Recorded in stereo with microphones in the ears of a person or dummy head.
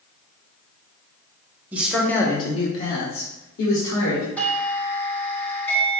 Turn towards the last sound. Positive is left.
turn(degrees=5)  # may be behind; listen again after turning